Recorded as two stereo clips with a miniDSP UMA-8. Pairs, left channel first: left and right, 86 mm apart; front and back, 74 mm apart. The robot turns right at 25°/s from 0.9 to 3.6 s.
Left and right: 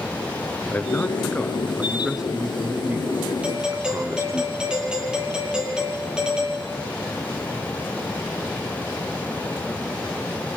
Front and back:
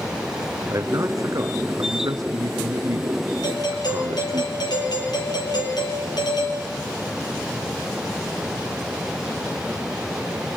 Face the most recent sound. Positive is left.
turn(degrees=-10)